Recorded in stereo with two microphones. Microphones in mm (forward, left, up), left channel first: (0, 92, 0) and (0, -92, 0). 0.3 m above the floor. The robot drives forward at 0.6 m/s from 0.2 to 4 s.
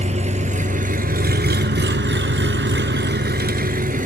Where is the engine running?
40° right (ahead or behind), 1.7 m; by 4.1 s 45° right (ahead or behind), 1.4 m.